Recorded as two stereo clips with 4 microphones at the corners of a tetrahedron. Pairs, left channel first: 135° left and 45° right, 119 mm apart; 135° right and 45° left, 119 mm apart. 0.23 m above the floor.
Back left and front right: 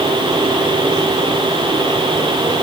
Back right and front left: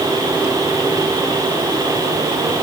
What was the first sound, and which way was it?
Only background noise.